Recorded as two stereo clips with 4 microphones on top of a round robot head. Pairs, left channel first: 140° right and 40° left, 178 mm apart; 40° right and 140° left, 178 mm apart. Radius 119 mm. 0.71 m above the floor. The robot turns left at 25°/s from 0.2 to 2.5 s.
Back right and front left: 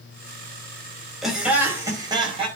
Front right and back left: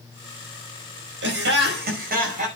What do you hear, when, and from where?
1.2 s laughter: 125° left, 5.5 m; by 2.5 s 95° left, 5.5 m